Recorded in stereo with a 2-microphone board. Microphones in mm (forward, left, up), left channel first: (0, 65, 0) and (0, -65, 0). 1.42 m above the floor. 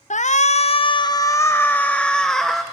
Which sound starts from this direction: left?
A shout, at 0.1 s.